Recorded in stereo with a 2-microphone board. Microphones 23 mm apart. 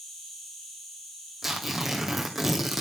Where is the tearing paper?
10° right (ahead or behind), 1.9 m.